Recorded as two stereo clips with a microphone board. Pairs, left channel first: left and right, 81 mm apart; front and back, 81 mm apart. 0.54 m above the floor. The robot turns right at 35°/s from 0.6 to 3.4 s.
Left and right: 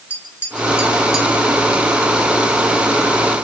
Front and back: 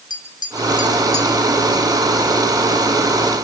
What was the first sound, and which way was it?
Tapping, 25° left.